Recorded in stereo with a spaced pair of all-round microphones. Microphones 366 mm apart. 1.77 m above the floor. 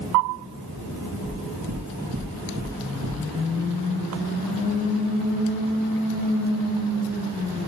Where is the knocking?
70° right (ahead or behind), 1.9 m.